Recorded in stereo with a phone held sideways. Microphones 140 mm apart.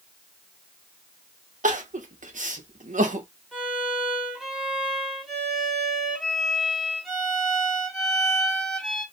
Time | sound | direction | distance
1.6 | crying | 65° right (ahead or behind) | 0.6 m
3.5 | a violin | 5° left (ahead or behind) | 1.7 m